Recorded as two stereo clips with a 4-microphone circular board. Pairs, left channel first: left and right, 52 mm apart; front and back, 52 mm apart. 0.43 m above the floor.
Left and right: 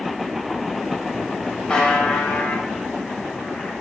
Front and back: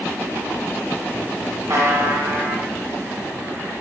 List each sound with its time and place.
1.7 s a buzzer: 165° left, 0.6 m